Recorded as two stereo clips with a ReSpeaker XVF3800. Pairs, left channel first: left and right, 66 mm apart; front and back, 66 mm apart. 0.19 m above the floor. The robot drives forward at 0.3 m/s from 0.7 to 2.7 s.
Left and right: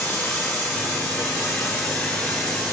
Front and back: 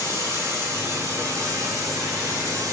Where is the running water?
160° left, 1.3 m; by 2.7 s 165° left, 1.8 m.